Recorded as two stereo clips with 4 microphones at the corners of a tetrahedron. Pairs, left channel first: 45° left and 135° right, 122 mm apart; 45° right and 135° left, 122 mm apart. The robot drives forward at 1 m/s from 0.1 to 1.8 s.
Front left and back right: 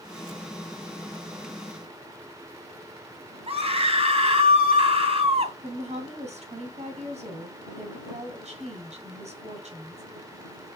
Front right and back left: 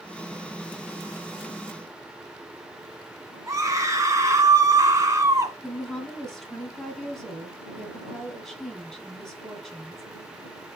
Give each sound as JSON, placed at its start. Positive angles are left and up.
{"t": 3.5, "sound": "a scream", "azimuth_deg": -165, "distance_m": 2.5}
{"t": 5.6, "sound": "a woman speaking", "azimuth_deg": -130, "distance_m": 2.5}